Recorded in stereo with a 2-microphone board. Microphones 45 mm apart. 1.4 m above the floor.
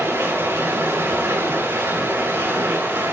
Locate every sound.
0.0 s running water: 75° right (ahead or behind), 6.5 m